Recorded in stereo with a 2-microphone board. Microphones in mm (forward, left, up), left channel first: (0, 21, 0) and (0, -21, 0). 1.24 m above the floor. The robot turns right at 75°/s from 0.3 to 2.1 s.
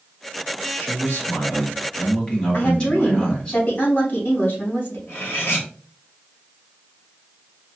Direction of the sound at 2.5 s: 45° left (ahead or behind).